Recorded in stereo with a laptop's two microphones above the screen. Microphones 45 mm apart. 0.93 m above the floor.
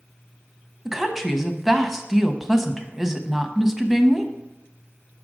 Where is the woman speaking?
5° right (ahead or behind), 0.8 m.